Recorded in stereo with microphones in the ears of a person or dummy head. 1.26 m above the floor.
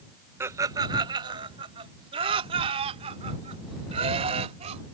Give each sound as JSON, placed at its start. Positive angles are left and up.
{"t": 0.4, "sound": "laughter", "side_deg": -15}